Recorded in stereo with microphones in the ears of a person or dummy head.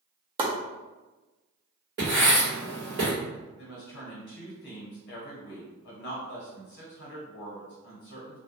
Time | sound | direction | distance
0.4 | chopping | 30° right (ahead or behind) | 0.6 m
2.0 | writing | 30° right (ahead or behind) | 1.2 m
3.6 | a woman speaking | 55° left (ahead or behind) | 1.2 m